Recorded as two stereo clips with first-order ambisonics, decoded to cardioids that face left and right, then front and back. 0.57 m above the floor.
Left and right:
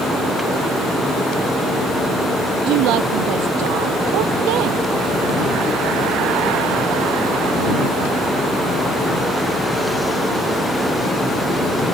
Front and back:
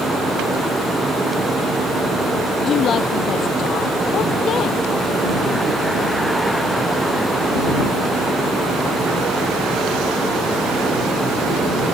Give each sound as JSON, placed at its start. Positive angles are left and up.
{"t": 2.6, "sound": "a woman speaking", "azimuth_deg": -60}